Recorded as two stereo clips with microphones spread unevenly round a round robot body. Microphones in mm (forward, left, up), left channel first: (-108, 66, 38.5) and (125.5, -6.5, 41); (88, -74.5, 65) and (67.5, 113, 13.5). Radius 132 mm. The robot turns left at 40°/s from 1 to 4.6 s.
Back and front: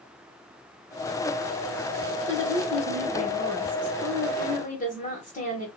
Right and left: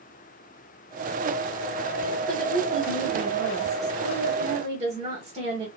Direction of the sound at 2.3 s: 150° right.